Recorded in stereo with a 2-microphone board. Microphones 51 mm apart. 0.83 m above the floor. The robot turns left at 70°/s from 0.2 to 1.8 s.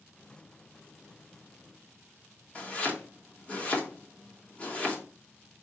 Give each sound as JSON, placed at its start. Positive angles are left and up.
{"t": 2.5, "sound": "chopping", "side_deg": 25, "distance_m": 1.2}